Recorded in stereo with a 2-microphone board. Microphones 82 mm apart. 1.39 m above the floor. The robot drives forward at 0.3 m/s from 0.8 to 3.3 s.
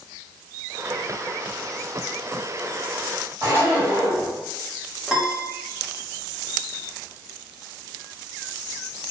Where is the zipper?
30° right (ahead or behind), 1.8 m.